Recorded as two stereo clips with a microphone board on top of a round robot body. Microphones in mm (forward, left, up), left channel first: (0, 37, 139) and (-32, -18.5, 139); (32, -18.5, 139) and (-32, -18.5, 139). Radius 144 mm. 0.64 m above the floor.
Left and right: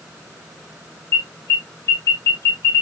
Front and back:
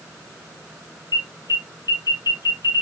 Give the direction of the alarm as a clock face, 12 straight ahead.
12 o'clock.